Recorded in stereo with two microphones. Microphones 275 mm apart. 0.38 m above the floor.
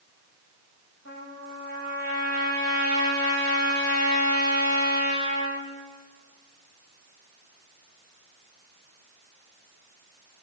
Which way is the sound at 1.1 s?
70° left (ahead or behind).